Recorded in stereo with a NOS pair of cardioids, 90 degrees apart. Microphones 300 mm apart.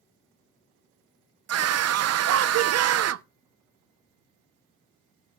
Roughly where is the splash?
No splash in this recording.